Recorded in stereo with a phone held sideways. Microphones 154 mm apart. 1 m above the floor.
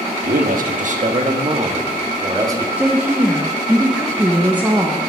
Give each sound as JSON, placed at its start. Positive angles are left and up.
{"t": 0.2, "sound": "a man speaking", "side_deg": -70, "distance_m": 1.3}
{"t": 2.8, "sound": "a woman speaking", "side_deg": -10, "distance_m": 1.0}